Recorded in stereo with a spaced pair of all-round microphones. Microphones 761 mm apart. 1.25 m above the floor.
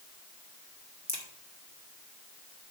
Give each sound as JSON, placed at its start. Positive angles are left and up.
{"t": 1.1, "sound": "a crack", "side_deg": -20, "distance_m": 1.8}